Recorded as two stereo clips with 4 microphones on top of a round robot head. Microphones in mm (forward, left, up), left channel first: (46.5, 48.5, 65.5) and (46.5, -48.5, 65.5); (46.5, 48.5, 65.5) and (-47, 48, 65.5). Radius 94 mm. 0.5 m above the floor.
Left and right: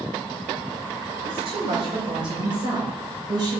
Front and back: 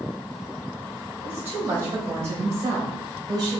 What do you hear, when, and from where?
1.2 s a woman speaking: 110° right, 3.5 m; by 3.6 s 135° right, 3 m